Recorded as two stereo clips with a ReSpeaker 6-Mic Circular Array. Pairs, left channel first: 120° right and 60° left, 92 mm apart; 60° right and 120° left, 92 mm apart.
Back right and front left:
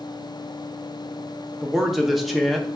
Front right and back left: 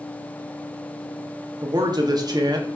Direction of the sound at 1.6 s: 150° left.